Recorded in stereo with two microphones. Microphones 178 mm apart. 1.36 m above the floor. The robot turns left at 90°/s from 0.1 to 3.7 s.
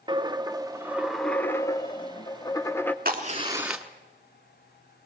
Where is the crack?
115° right, 1.4 m; by 3.9 s 175° right, 1.4 m.